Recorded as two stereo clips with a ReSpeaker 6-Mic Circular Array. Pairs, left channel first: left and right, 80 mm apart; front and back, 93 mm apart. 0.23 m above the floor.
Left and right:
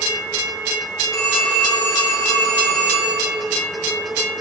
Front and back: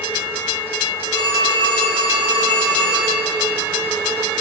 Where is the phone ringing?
35° left, 6.5 m.